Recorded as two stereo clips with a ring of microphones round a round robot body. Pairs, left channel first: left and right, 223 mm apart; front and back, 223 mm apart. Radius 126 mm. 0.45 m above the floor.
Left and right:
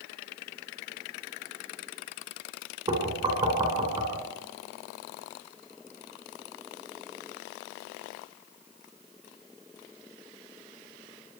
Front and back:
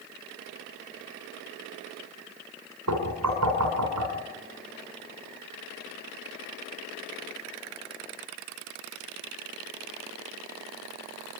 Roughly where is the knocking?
Behind.